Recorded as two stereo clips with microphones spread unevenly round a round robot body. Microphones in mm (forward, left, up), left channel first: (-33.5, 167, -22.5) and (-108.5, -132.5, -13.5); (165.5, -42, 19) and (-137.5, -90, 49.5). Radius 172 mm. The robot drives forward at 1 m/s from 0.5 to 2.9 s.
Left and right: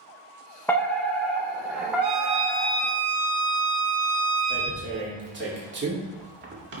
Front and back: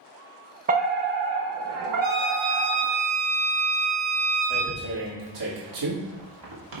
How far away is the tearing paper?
About 2.5 m.